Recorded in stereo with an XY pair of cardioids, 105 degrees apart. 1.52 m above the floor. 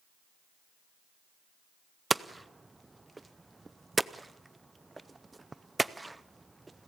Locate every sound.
2.1 s hammering: 15° right, 0.6 m